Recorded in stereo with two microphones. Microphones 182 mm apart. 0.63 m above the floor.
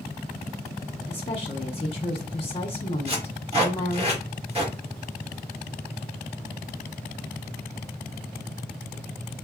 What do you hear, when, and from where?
1.1 s a woman speaking: 30° left (ahead or behind), 0.7 m
3.1 s tape being pulled: 35° right (ahead or behind), 1.5 m